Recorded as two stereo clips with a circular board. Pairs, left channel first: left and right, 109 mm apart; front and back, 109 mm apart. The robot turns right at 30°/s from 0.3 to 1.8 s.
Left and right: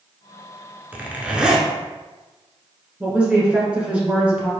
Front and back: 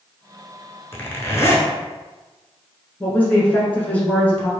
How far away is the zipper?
About 0.7 m.